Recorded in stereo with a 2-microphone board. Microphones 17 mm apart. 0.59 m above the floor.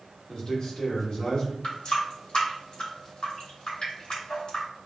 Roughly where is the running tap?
Left.